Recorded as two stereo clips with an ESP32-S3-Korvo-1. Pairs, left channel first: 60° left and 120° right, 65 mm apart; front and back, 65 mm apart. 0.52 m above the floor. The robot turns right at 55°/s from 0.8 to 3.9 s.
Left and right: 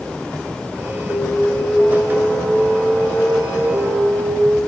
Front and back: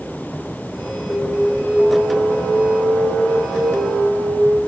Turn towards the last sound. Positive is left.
turn(degrees=-150)